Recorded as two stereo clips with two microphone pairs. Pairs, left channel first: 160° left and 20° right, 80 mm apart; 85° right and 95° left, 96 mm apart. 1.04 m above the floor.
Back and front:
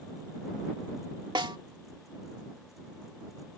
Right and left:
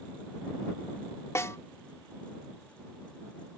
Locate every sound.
1.4 s a snare drum: 30° right